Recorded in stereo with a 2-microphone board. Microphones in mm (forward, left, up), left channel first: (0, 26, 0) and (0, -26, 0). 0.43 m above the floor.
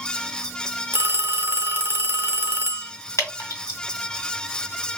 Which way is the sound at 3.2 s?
65° left (ahead or behind).